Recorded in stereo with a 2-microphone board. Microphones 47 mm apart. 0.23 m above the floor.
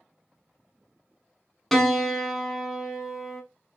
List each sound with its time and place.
1.7 s a piano: 5° left (ahead or behind), 0.5 m